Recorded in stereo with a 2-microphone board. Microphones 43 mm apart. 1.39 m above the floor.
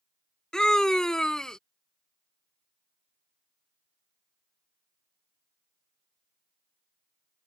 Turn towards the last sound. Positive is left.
turn(degrees=15)  # may be behind; listen again after turning